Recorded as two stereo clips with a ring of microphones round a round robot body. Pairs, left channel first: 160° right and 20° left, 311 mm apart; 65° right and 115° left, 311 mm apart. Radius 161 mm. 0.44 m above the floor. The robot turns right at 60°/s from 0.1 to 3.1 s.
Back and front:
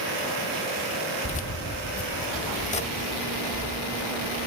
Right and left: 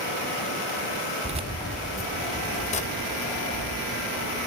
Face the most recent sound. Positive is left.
turn(degrees=-90)